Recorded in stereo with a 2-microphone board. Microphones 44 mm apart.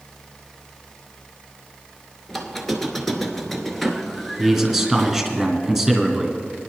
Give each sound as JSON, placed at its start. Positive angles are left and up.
{"t": 2.3, "sound": "a squeak", "side_deg": 5, "distance_m": 1.0}
{"t": 4.4, "sound": "a man speaking", "side_deg": 0, "distance_m": 2.0}